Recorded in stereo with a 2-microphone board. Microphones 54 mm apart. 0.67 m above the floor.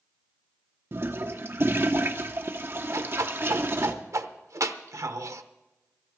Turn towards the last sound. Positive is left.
turn(degrees=-75)  # may be behind; listen again after turning